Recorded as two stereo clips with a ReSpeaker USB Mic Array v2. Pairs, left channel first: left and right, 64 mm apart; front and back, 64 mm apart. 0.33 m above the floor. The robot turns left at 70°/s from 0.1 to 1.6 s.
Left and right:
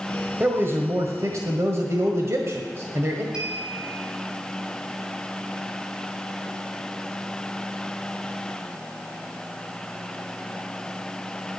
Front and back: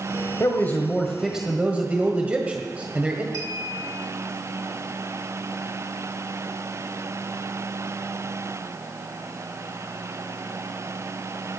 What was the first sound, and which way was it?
A man speaking, 35° right.